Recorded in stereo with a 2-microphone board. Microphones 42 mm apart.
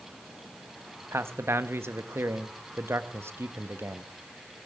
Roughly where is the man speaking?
Right.